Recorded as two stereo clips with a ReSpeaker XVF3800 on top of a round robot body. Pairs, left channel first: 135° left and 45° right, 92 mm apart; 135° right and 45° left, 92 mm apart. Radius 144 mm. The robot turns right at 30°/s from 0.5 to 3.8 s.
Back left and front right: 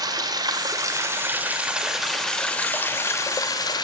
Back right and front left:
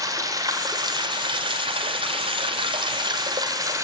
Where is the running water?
5° right, 2 m; by 3.8 s 95° left, 2 m.